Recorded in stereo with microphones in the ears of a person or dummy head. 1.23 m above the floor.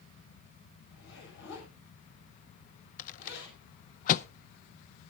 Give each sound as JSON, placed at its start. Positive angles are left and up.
{"t": 0.9, "sound": "a zipper", "side_deg": 70, "distance_m": 7.0}
{"t": 3.0, "sound": "a rattle", "side_deg": 45, "distance_m": 0.6}